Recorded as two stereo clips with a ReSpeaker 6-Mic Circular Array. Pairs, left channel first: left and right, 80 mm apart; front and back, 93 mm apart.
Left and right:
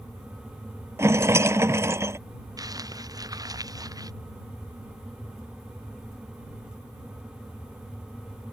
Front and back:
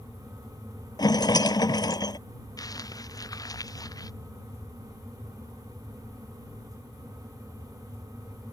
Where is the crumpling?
50° right.